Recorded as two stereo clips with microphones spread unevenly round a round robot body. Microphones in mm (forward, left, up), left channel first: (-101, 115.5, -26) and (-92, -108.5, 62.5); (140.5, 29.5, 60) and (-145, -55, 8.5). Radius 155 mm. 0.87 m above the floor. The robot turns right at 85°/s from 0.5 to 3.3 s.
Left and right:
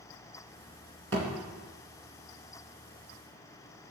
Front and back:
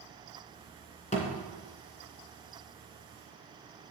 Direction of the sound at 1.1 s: 45° right.